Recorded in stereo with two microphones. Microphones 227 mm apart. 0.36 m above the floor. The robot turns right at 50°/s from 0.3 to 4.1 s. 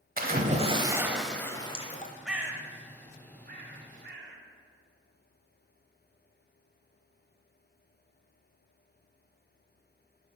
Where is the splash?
45° right, 0.8 m; by 2.1 s 45° left, 0.8 m.